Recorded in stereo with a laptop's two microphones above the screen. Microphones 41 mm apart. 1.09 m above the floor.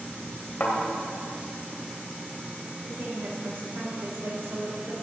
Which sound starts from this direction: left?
A thud, at 0.6 s.